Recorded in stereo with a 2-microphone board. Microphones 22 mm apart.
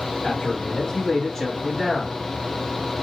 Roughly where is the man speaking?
Left.